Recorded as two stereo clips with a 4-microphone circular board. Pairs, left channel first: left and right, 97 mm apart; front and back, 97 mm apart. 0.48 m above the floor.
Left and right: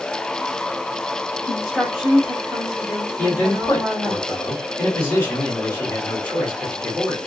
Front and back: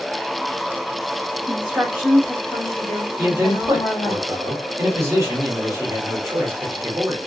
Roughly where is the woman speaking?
Behind.